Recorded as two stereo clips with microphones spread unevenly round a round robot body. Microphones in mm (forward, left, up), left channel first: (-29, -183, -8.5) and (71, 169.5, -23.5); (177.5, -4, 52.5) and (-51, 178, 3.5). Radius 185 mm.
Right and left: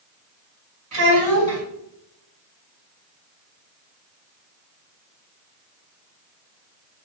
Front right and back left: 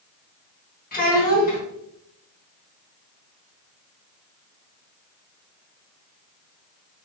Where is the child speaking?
25° left, 2.5 m.